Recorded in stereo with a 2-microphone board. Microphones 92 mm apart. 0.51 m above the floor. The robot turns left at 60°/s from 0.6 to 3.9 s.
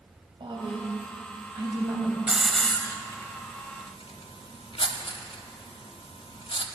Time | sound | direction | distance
0.4 | a woman speaking | 75° right | 2.5 m
2.3 | a hiss | 10° right (ahead or behind) | 0.8 m